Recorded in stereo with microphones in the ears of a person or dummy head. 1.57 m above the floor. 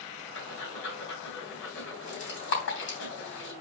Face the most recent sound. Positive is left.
turn(degrees=60)  # may be behind; listen again after turning